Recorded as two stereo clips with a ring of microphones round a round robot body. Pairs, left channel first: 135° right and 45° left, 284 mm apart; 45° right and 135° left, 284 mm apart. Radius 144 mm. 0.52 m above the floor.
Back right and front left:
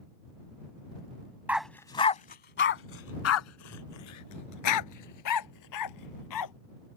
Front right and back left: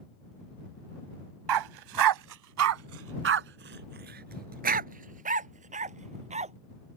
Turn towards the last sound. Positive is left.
turn(degrees=-155)